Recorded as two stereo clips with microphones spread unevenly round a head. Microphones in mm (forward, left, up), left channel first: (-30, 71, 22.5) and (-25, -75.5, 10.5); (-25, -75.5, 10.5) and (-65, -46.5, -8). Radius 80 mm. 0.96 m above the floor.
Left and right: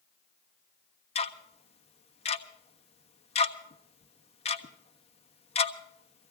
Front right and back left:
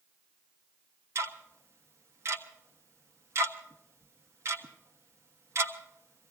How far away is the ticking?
About 1.3 m.